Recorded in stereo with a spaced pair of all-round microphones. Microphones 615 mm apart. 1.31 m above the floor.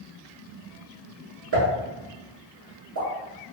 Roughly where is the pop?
Right.